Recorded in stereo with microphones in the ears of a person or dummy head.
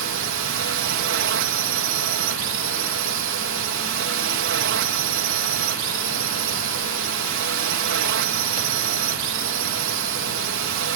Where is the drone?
55° right (ahead or behind).